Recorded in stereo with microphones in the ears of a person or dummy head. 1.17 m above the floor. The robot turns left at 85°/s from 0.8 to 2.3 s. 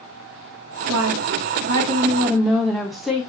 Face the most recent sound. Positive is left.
turn(degrees=180)